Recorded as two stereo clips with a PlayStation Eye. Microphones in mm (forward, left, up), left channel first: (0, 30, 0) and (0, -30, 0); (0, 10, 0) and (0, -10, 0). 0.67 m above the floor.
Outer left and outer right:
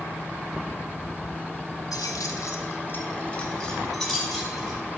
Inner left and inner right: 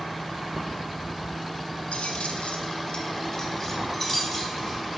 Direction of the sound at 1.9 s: 75° left (ahead or behind).